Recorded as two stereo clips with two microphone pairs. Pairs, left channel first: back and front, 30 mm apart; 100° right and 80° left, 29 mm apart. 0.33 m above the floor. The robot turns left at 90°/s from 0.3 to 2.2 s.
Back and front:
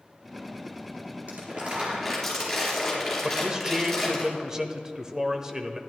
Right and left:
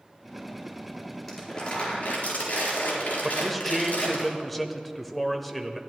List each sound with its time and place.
1.3 s crumpling: 10° right, 4 m; by 4.2 s 95° right, 4 m
3.2 s a man speaking: 20° right, 0.8 m